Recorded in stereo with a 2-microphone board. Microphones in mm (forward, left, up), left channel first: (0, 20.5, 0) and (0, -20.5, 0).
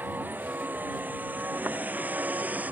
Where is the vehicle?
50° right (ahead or behind); by 2.7 s 40° right (ahead or behind).